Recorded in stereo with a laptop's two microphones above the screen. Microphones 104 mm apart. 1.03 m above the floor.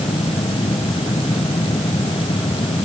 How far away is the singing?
I don't hear singing.